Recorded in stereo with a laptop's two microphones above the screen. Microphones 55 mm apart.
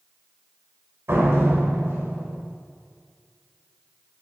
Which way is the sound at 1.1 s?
50° right (ahead or behind).